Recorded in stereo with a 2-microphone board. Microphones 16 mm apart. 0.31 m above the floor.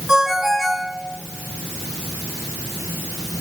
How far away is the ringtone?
About 1.9 m.